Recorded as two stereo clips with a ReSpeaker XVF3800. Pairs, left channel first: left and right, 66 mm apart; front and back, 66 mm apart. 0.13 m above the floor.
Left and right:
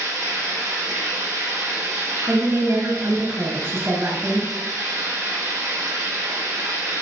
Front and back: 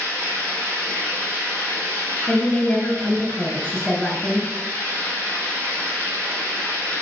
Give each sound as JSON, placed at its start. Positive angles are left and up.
{"t": 0.0, "sound": "running water", "azimuth_deg": -125, "distance_m": 4.5}
{"t": 2.3, "sound": "a woman speaking", "azimuth_deg": -85, "distance_m": 1.5}